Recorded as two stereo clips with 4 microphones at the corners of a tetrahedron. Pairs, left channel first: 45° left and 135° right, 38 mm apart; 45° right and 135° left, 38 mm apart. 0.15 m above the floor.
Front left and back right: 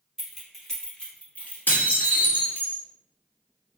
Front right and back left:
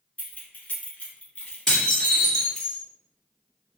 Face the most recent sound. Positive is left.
turn(degrees=25)